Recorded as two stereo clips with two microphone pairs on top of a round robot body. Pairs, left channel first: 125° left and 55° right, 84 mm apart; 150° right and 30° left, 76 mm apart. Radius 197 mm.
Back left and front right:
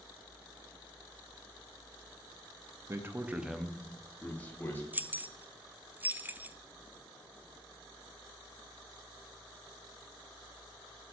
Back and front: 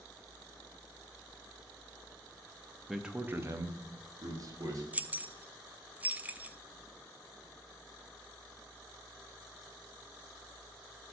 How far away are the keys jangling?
About 0.6 m.